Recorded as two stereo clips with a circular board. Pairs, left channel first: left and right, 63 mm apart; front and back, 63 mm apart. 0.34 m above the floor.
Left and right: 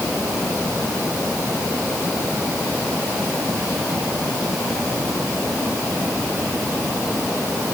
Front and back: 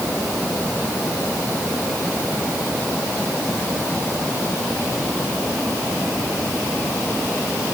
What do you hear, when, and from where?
Only background noise.